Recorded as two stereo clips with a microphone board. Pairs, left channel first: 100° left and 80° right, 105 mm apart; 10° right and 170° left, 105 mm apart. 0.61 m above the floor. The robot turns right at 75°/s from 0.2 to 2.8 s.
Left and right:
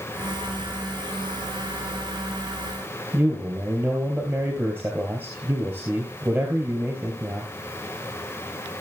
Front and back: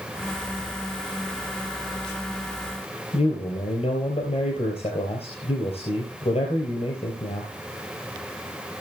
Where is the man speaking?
5° right, 3.5 m.